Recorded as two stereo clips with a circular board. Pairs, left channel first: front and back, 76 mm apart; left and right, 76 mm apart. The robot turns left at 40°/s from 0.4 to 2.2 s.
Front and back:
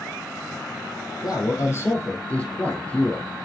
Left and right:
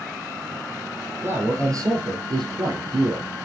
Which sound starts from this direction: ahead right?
A man speaking, at 1.2 s.